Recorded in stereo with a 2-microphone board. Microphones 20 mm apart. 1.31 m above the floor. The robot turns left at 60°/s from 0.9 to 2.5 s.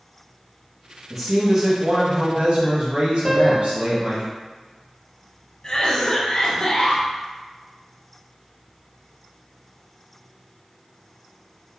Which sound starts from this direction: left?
A cough, at 5.6 s.